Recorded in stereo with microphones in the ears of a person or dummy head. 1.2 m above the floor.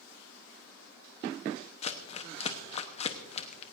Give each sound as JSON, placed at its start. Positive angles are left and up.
{"t": 1.8, "sound": "crumpling", "side_deg": 30, "distance_m": 0.9}